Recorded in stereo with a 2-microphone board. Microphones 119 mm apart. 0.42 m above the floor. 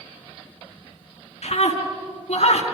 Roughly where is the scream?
Left.